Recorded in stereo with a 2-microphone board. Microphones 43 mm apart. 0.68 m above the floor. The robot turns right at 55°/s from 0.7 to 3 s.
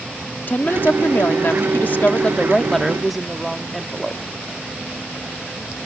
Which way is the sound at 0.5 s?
60° left.